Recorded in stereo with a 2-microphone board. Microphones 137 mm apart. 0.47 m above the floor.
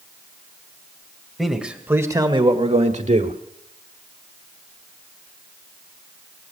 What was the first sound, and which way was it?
A man speaking, centre (ahead or behind).